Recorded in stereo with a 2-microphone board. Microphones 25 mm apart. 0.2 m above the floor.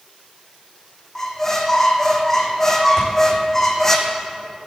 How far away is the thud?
About 5 m.